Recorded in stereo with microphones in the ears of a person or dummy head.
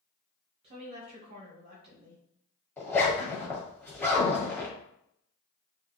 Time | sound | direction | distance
0.6 | a woman speaking | 30° right (ahead or behind) | 1.6 m
2.8 | a zipper | 10° left (ahead or behind) | 1.2 m